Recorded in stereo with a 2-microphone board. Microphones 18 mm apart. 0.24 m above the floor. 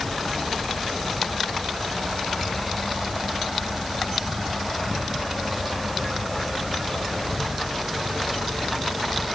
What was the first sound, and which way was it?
Only background noise.